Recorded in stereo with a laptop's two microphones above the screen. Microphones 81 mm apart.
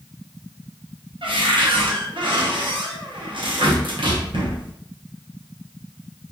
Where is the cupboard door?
75° right (ahead or behind), 0.8 m.